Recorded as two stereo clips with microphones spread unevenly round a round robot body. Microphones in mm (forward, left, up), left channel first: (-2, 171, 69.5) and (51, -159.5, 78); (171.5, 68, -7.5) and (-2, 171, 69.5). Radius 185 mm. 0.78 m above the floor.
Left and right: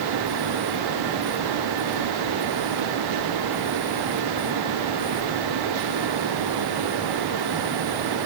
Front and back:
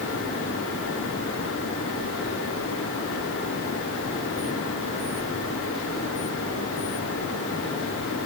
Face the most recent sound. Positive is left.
No sound to turn to.